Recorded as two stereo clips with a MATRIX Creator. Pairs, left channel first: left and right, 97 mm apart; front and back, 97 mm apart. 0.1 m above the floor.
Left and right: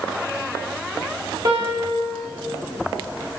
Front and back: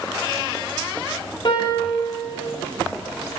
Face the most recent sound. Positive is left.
turn(degrees=-40)